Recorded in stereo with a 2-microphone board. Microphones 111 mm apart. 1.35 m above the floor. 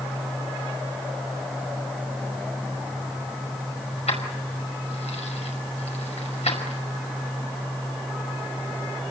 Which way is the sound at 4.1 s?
85° left.